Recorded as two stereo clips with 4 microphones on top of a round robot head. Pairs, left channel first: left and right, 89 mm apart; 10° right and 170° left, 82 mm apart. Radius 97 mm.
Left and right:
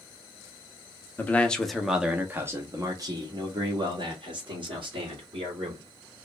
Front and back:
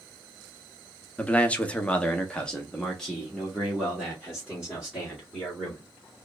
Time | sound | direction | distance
1.2 | a man speaking | 45° left | 0.9 m